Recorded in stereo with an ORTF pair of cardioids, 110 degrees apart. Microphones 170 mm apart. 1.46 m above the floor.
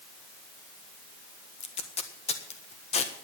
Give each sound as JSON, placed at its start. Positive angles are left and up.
{"t": 1.6, "sound": "tape being pulled", "azimuth_deg": 40, "distance_m": 1.6}